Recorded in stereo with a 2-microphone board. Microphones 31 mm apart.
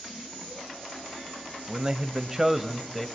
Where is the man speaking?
30° right (ahead or behind), 1.8 m; by 3.1 s 5° left (ahead or behind), 1.7 m.